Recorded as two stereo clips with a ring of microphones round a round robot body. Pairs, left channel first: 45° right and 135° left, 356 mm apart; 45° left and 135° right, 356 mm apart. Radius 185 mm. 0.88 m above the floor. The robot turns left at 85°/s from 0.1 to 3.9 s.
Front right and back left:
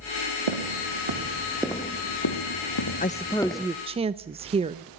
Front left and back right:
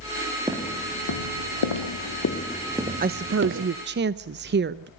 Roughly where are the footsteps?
Behind left.